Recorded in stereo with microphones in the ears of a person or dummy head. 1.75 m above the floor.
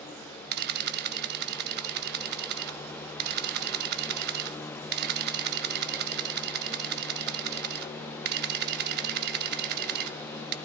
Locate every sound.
0.5 s a camera shutter: 55° right (ahead or behind), 0.6 m